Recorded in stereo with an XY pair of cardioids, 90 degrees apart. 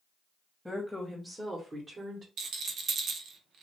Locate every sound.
0.7 s a woman speaking: straight ahead, 1.1 m; by 2.3 s 50° right, 1.0 m
2.4 s a rattle: 65° right, 0.5 m